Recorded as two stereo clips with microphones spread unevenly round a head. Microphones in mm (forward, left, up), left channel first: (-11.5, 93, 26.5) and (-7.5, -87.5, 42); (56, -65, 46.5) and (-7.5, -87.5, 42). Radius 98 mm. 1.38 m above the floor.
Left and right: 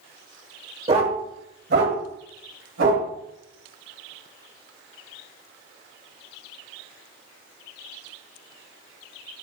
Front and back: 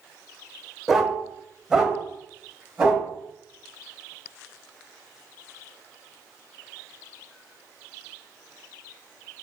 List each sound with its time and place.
0.9 s a dog barking: 70° right, 1.2 m; by 3.1 s 80° right, 3 m